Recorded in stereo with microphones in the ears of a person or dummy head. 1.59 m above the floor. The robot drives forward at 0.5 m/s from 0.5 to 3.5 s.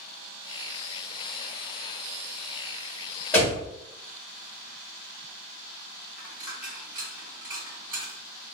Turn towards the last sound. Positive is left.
turn(degrees=-20)  # may be behind; listen again after turning